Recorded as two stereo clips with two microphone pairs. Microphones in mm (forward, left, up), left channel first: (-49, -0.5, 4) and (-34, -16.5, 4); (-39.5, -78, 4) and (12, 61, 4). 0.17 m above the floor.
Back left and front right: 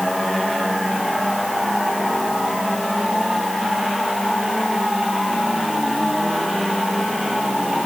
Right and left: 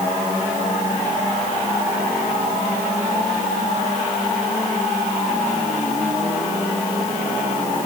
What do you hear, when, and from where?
Only background noise.